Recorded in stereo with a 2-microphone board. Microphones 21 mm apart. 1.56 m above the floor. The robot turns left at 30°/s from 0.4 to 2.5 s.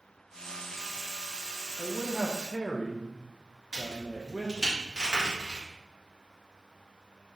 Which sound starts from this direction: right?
A crack, at 3.7 s.